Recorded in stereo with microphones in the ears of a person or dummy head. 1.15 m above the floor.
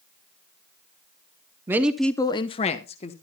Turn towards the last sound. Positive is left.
turn(degrees=35)  # may be behind; listen again after turning